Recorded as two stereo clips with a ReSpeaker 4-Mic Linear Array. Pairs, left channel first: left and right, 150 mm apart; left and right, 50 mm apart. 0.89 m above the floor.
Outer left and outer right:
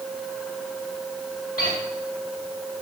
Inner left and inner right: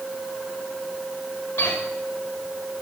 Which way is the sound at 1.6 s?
75° left (ahead or behind).